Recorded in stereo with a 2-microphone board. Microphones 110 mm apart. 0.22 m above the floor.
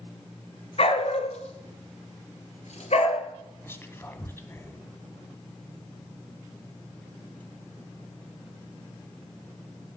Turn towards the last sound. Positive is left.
turn(degrees=20)  # may be behind; listen again after turning